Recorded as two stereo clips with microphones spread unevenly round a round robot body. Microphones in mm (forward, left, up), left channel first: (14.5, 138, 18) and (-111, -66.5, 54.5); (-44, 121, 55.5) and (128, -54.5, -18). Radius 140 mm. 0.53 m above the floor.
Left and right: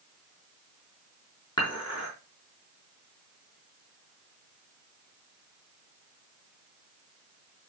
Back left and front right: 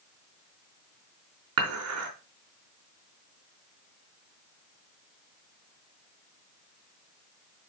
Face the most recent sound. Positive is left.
turn(degrees=-15)